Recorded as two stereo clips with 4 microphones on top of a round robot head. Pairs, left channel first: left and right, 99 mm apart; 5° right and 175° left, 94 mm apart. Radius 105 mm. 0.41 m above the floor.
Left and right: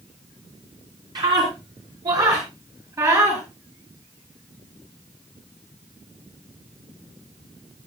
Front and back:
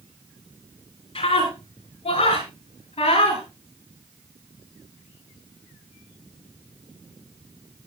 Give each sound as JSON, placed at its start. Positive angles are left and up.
{"t": 1.1, "sound": "a scream", "azimuth_deg": -40, "distance_m": 6.5}